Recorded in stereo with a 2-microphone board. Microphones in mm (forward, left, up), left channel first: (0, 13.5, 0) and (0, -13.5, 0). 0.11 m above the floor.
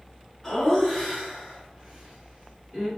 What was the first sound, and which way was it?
Laughter, 15° left (ahead or behind).